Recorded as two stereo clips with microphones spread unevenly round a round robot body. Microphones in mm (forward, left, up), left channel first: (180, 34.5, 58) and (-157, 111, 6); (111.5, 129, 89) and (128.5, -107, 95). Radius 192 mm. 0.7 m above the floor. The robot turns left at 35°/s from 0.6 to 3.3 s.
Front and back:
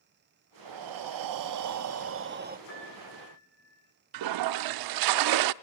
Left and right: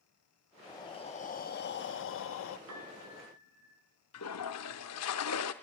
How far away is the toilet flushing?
About 0.5 m.